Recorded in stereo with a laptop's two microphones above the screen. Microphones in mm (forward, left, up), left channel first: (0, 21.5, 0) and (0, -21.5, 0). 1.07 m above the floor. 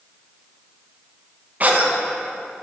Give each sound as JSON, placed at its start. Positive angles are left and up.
{"t": 1.6, "sound": "a cough", "side_deg": -35, "distance_m": 1.2}